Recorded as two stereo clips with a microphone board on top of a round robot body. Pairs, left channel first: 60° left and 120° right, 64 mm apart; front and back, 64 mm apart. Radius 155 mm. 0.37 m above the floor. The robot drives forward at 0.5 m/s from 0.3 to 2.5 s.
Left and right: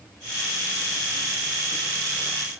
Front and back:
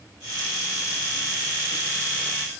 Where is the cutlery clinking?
No cutlery clinking in this recording.